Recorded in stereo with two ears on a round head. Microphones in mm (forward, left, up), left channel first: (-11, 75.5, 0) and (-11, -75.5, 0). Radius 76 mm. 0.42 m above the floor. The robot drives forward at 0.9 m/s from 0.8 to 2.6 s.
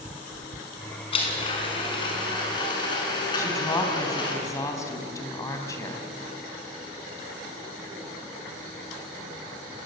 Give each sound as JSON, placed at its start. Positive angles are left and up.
{"t": 1.1, "sound": "a blender", "side_deg": 35, "distance_m": 5.0}
{"t": 3.4, "sound": "a woman speaking", "side_deg": 20, "distance_m": 3.5}